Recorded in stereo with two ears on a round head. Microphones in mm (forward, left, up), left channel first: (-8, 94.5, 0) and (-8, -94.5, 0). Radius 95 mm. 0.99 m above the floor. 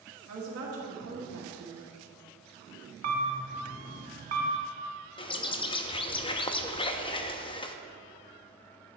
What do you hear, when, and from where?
0.3 s a woman speaking: 65° right (ahead or behind), 1.7 m
3.0 s a camera shutter: 40° right (ahead or behind), 1.1 m
5.2 s a bird: 25° left (ahead or behind), 0.6 m